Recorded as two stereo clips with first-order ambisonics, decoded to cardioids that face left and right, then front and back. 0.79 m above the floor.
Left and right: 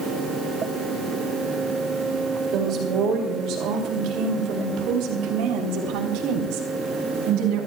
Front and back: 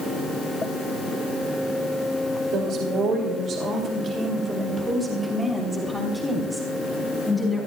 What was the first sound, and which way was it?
A woman speaking, 135° right.